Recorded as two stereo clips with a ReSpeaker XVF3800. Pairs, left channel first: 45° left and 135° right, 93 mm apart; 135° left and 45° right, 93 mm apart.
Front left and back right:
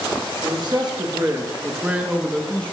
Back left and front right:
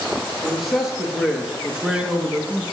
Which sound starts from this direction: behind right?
A man speaking, at 0.4 s.